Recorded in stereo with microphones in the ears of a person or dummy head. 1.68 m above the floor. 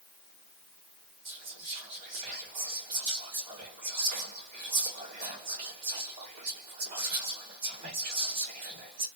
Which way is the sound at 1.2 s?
55° right (ahead or behind).